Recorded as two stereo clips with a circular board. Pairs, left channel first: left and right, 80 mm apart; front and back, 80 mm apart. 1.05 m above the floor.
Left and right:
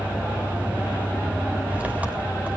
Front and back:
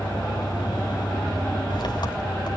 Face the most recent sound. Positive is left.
turn(degrees=-20)